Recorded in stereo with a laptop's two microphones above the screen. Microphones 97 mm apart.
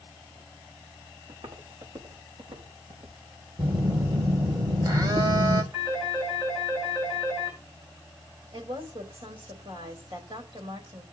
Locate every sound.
1.3 s footsteps: 80° right, 4.5 m; by 3.2 s 70° right (ahead or behind), 5.5 m
3.6 s a phone buzzing: 40° right (ahead or behind), 1.2 m
5.7 s a phone ringing: 45° right (ahead or behind), 8.5 m
8.5 s a woman speaking: 65° right (ahead or behind), 4 m